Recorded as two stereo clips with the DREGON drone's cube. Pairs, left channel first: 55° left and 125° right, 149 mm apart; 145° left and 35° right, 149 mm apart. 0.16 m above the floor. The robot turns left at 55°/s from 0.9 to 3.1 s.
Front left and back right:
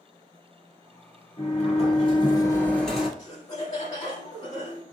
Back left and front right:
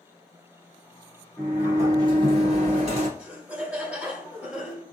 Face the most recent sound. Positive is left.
turn(degrees=40)